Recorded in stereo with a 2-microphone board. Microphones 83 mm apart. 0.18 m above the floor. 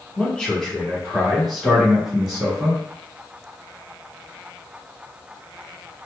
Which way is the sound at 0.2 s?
10° left (ahead or behind).